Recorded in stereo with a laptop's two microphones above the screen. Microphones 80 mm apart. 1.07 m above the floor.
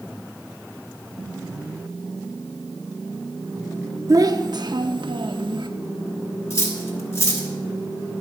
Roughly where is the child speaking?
Right.